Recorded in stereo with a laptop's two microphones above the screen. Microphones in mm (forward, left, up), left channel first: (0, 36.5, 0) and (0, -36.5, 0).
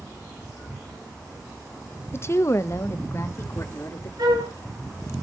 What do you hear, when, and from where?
2.1 s a woman speaking: 35° left (ahead or behind), 0.5 m; by 4.1 s 40° left (ahead or behind), 2.5 m
4.2 s a flute: 75° right (ahead or behind), 3 m